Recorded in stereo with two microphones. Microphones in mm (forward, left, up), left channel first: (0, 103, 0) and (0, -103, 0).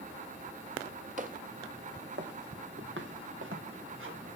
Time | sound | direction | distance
1.2 | footsteps | 40° right (ahead or behind) | 1.8 m